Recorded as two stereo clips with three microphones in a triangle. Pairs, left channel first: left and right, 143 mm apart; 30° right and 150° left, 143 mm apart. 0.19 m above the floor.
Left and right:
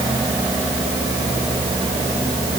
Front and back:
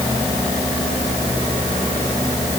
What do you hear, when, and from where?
Only background noise.